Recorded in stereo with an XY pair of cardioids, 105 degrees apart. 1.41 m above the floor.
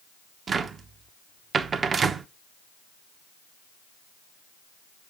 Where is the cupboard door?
45° right, 0.9 m.